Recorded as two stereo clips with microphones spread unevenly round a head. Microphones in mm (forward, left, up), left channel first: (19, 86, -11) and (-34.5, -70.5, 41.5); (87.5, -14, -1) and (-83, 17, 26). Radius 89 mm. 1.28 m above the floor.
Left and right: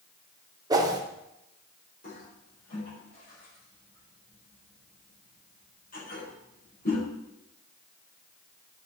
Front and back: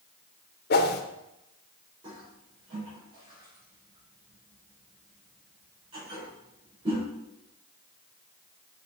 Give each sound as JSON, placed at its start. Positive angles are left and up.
{"t": 0.7, "sound": "a whoosh", "azimuth_deg": -35, "distance_m": 0.9}
{"t": 2.0, "sound": "a toilet flushing", "azimuth_deg": 110, "distance_m": 4.5}